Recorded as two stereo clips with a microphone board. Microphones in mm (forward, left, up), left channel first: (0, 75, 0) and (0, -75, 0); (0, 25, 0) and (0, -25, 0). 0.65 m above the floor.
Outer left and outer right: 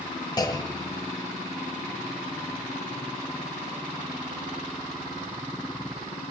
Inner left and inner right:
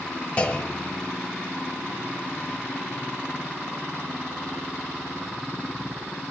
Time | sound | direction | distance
0.4 | a clunk | 25° left (ahead or behind) | 1.4 m